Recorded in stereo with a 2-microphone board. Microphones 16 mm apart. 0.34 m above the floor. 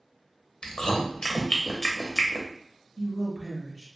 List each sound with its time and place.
0.6 s chewing: 50° left (ahead or behind), 0.6 m
3.0 s a woman speaking: 5° right (ahead or behind), 1.1 m